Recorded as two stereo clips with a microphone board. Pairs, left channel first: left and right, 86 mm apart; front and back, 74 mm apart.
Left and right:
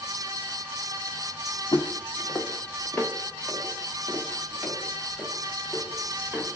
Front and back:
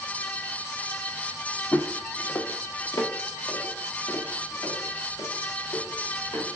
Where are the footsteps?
60° left, 0.6 m; by 6.5 s 5° right, 2.5 m.